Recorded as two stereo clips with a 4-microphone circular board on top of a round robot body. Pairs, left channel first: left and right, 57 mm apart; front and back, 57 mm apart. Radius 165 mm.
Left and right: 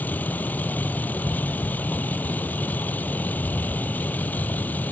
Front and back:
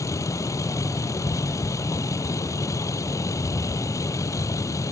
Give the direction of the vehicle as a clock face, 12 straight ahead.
11 o'clock.